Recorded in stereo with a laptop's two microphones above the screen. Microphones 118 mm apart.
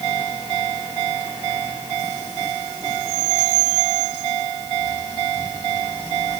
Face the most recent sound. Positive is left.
No sound to turn to.